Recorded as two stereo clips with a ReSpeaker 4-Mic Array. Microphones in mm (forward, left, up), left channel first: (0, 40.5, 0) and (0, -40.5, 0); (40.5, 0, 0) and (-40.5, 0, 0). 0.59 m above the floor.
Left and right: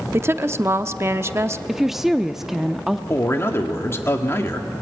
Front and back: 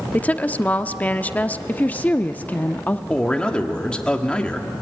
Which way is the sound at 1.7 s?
10° right.